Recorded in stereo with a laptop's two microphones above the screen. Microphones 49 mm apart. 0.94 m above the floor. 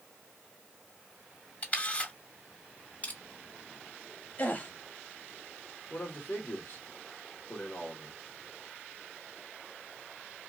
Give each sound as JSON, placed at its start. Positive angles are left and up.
{"t": 1.6, "sound": "a camera shutter", "side_deg": 35, "distance_m": 2.0}
{"t": 3.0, "sound": "crushing", "side_deg": 35, "distance_m": 1.9}
{"t": 4.4, "sound": "a gasp", "side_deg": 35, "distance_m": 0.9}
{"t": 5.9, "sound": "a man speaking", "side_deg": 55, "distance_m": 1.7}